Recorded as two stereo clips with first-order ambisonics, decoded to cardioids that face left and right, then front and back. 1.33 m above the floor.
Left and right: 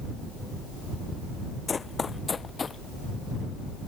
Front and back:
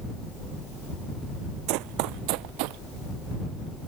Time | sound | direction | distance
1.7 | running footsteps | 165° left | ?